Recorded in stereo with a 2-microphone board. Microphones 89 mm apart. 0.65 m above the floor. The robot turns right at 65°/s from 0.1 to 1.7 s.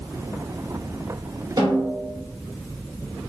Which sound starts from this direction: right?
A snare drum, at 1.6 s.